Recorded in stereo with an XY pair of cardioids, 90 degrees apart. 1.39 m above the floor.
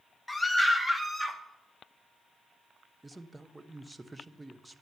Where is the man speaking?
20° right, 0.9 m.